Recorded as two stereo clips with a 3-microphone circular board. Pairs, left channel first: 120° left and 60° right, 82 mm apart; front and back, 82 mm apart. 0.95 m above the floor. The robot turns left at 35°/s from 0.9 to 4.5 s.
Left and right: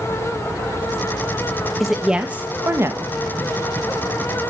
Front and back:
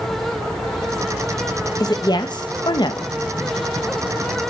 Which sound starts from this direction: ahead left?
A woman speaking, at 1.8 s.